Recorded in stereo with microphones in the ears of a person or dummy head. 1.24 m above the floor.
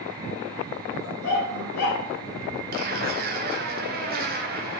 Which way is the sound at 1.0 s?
60° left (ahead or behind).